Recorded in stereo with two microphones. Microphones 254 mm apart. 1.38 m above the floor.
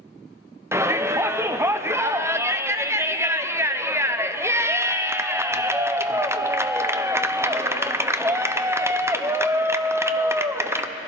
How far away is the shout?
About 0.6 m.